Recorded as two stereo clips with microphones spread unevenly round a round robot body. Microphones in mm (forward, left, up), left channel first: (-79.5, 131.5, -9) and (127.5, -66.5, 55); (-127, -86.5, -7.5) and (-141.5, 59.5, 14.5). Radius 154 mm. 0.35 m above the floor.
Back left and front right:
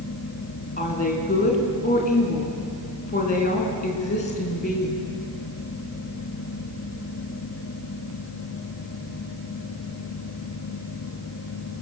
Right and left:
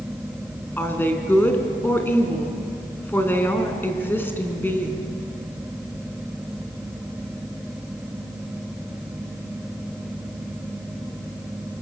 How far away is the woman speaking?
About 4 m.